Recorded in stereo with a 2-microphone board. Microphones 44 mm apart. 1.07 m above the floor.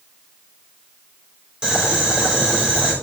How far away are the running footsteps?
I don't hear running footsteps.